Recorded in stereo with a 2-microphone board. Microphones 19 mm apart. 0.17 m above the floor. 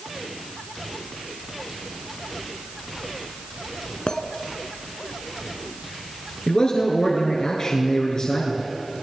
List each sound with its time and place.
4.1 s a clink: 55° left (ahead or behind), 0.9 m
6.5 s a man speaking: 40° left (ahead or behind), 2.5 m